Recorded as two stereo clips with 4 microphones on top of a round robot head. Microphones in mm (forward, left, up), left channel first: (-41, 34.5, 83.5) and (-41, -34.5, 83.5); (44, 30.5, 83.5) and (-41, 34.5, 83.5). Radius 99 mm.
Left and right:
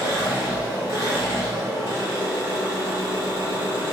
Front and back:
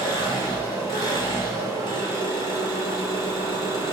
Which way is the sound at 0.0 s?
35° left.